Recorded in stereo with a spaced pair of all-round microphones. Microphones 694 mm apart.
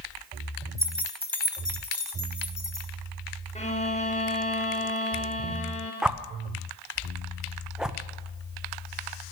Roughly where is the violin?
Centre.